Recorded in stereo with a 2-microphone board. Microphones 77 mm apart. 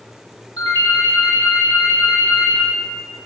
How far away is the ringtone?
About 0.7 m.